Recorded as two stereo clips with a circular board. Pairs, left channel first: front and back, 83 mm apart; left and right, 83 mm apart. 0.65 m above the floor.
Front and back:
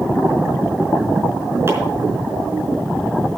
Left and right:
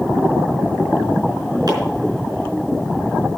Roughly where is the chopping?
Behind right.